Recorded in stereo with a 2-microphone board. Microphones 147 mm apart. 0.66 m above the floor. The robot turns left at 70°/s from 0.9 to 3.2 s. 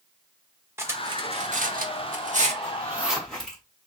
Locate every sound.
0.8 s cutlery clinking: 20° right (ahead or behind), 0.9 m; by 2.5 s 45° right (ahead or behind), 0.9 m
2.6 s a zipper: 35° right (ahead or behind), 2.0 m; by 3.6 s 5° left (ahead or behind), 2.0 m